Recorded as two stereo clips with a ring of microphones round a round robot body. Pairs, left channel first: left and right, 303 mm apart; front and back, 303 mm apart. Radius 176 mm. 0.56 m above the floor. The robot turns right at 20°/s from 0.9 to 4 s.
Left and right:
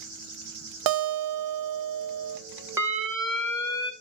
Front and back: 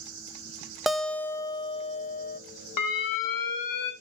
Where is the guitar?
90° right, 1.0 m; by 2.4 s 60° right, 1.0 m.